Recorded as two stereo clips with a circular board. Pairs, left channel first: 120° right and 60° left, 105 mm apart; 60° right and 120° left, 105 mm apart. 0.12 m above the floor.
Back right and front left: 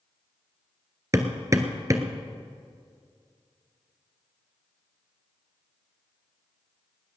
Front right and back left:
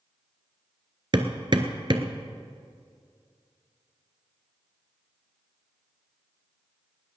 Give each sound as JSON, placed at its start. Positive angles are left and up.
{"t": 1.1, "sound": "hammering", "azimuth_deg": 110, "distance_m": 1.1}